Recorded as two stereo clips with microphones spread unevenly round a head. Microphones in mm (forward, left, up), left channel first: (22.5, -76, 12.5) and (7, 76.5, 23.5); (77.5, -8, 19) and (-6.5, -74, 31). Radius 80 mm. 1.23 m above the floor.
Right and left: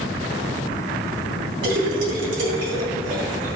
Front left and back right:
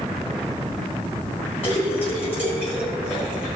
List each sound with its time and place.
1.6 s a splash: 100° left, 3.5 m